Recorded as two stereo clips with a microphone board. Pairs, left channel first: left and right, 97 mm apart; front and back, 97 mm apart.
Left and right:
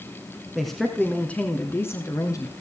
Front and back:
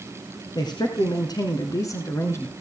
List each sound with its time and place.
0.6 s a man speaking: straight ahead, 1.6 m; by 2.5 s 55° left, 1.6 m